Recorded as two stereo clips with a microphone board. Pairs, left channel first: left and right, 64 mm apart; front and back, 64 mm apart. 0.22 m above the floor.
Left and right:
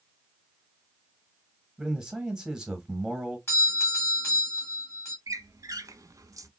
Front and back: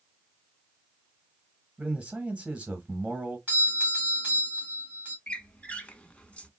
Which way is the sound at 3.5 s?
125° left.